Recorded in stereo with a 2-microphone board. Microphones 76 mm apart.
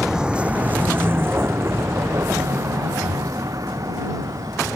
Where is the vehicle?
5° right (ahead or behind); by 4.8 s 55° right (ahead or behind).